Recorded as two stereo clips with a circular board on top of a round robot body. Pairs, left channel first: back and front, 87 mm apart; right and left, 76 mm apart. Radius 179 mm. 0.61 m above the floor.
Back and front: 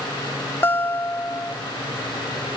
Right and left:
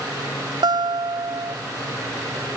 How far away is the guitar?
About 0.6 m.